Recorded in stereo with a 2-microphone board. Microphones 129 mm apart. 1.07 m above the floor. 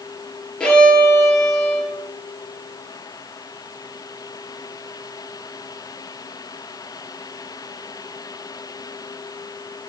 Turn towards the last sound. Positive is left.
turn(degrees=5)  # may be behind; listen again after turning